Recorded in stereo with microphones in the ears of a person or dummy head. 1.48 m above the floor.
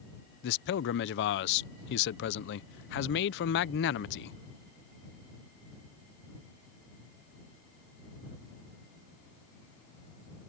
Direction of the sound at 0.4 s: 65° left (ahead or behind).